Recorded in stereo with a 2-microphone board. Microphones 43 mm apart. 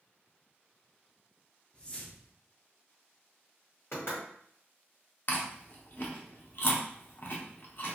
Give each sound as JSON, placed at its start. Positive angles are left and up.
{"t": 1.7, "sound": "a whoosh", "side_deg": 20, "distance_m": 0.5}
{"t": 3.9, "sound": "knocking", "side_deg": 65, "distance_m": 1.9}
{"t": 5.3, "sound": "chewing", "side_deg": 50, "distance_m": 0.6}